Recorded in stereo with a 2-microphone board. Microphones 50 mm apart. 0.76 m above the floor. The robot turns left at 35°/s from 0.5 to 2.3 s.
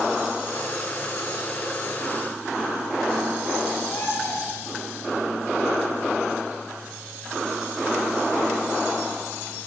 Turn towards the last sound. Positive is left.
turn(degrees=50)  # may be behind; listen again after turning